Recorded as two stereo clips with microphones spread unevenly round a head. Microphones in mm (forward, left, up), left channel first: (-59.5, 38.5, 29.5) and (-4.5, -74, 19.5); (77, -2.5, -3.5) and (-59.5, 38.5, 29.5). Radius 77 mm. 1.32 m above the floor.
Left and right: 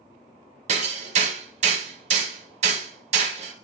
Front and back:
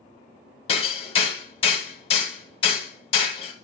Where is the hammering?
75° right, 1.3 m.